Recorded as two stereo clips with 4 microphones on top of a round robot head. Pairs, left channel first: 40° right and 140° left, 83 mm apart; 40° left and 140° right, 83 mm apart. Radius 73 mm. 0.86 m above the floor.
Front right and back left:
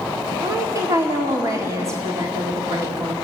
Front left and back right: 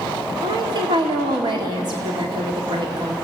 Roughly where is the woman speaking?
Behind.